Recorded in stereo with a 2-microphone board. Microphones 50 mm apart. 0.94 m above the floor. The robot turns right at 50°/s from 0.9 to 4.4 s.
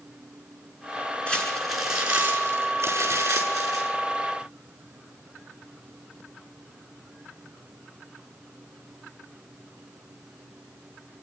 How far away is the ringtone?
I don't hear a ringtone.